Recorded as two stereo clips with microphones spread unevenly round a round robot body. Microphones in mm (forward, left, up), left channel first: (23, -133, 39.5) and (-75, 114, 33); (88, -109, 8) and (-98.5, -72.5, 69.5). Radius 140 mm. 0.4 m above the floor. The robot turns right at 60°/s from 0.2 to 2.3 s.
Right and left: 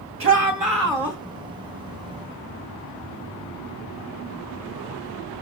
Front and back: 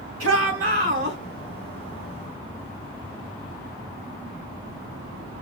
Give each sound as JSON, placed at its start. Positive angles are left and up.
{"t": 0.2, "sound": "a shout", "azimuth_deg": 145, "distance_m": 2.0}